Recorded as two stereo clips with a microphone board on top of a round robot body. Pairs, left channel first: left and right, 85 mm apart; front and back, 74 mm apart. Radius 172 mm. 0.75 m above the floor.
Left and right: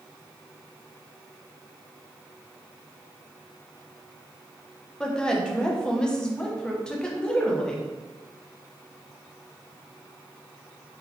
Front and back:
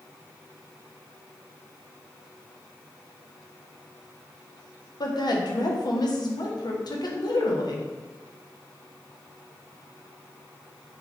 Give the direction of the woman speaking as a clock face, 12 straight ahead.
12 o'clock.